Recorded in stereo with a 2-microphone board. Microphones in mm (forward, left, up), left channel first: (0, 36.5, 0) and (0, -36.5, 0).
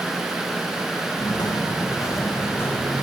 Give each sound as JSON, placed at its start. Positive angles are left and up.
{"t": 1.2, "sound": "footsteps", "side_deg": 75, "distance_m": 2.5}